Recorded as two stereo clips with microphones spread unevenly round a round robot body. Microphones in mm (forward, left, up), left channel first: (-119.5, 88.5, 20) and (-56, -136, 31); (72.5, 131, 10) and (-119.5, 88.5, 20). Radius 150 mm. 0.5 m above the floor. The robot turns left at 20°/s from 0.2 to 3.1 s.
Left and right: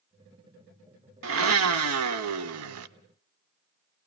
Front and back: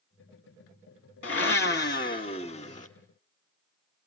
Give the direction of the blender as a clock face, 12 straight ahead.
1 o'clock.